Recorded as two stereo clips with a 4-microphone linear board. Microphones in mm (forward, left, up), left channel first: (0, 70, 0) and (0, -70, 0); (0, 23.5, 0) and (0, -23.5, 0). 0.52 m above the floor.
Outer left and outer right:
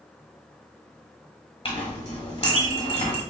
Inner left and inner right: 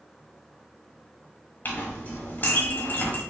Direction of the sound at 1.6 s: 45° left (ahead or behind).